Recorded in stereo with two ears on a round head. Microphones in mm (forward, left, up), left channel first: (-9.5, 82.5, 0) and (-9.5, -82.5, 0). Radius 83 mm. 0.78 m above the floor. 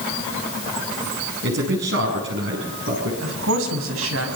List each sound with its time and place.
1.4 s a man speaking: 70° right (ahead or behind), 6 m
3.2 s a woman speaking: 85° right, 5 m